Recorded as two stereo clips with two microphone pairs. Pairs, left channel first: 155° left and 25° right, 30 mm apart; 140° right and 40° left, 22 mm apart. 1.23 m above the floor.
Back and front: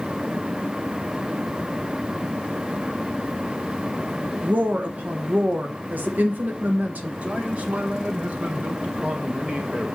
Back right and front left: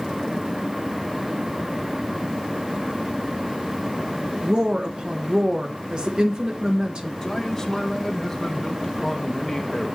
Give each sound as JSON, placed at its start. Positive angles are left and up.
{"t": 4.4, "sound": "a woman speaking", "azimuth_deg": -10, "distance_m": 1.1}
{"t": 7.2, "sound": "a man speaking", "azimuth_deg": -65, "distance_m": 1.2}